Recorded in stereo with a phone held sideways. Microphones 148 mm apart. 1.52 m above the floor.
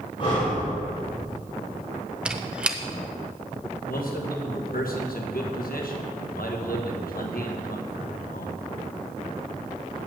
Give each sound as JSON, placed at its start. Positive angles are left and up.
{"t": 0.2, "sound": "breathing", "side_deg": 40, "distance_m": 3.5}
{"t": 2.2, "sound": "a squeak", "side_deg": -5, "distance_m": 0.6}
{"t": 3.9, "sound": "a man speaking", "side_deg": 80, "distance_m": 1.4}